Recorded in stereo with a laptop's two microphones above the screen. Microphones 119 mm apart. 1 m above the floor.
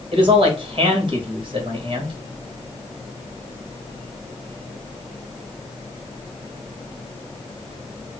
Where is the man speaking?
45° right (ahead or behind), 1.3 m.